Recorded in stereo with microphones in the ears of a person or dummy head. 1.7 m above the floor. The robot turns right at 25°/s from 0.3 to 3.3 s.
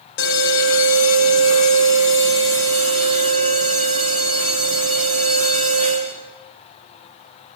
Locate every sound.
0.2 s an alarm: 60° left, 3 m; by 6.2 s 135° left, 3 m